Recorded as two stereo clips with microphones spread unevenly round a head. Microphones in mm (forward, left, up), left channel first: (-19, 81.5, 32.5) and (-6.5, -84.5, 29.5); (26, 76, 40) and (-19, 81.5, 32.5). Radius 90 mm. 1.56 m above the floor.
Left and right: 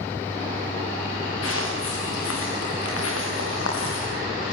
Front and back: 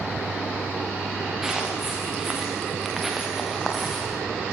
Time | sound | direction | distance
1.4 | footsteps | 90° left | 8.5 m